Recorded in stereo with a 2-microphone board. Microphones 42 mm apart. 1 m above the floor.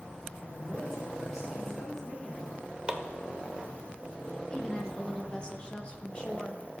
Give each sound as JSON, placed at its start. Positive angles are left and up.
{"t": 0.4, "sound": "a woman speaking", "side_deg": 0, "distance_m": 3.5}
{"t": 2.9, "sound": "chopping", "side_deg": -20, "distance_m": 0.9}
{"t": 4.5, "sound": "a woman speaking", "side_deg": 25, "distance_m": 1.4}